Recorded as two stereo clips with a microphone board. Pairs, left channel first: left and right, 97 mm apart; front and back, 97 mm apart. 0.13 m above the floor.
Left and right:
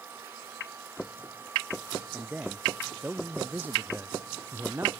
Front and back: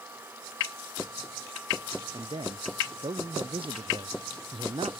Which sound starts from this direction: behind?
A man speaking, at 2.1 s.